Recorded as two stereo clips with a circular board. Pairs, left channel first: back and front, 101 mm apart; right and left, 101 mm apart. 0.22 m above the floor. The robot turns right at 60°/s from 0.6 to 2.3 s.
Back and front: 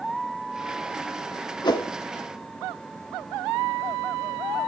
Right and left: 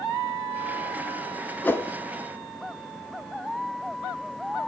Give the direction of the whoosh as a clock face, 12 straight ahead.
5 o'clock.